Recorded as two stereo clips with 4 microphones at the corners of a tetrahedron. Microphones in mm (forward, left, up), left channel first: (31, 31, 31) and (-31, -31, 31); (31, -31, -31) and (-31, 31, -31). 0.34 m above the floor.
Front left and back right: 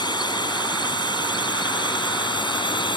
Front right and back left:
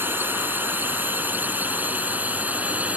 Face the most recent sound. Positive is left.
turn(degrees=65)